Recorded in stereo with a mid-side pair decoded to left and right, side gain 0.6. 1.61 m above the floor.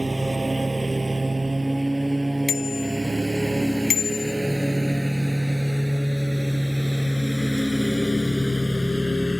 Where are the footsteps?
I don't hear footsteps.